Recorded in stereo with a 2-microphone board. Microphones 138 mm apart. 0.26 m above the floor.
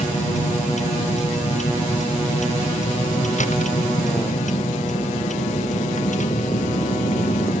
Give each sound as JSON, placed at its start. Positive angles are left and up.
{"t": 0.0, "sound": "a vehicle", "side_deg": 55}